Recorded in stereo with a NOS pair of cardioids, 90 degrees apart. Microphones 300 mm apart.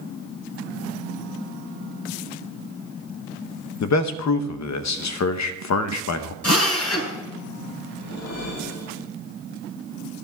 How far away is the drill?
About 3.5 m.